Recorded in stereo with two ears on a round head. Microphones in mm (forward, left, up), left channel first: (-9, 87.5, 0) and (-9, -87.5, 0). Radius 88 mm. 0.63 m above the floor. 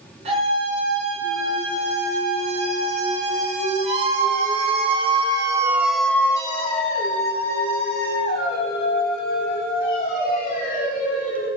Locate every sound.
0.2 s a scream: 35° right (ahead or behind), 7.5 m; by 11.5 s 35° left (ahead or behind), 7 m